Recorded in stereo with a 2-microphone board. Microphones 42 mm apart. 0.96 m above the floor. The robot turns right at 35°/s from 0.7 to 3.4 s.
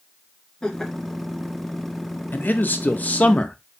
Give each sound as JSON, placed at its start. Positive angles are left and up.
{"t": 0.6, "sound": "laughter", "side_deg": 15, "distance_m": 1.8}
{"t": 2.3, "sound": "a man speaking", "azimuth_deg": 95, "distance_m": 0.7}